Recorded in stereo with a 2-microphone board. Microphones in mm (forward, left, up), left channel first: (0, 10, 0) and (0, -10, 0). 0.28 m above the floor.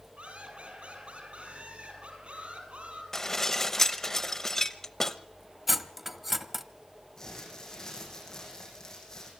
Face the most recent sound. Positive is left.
turn(degrees=30)  # may be behind; listen again after turning